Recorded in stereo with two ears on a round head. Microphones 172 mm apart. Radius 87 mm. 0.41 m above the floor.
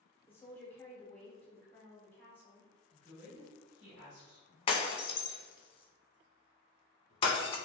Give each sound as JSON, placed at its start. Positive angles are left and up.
{"t": 0.3, "sound": "a woman speaking", "side_deg": 10, "distance_m": 0.8}
{"t": 2.9, "sound": "a woman speaking", "side_deg": -40, "distance_m": 1.8}
{"t": 4.7, "sound": "breaking glass", "side_deg": 30, "distance_m": 0.5}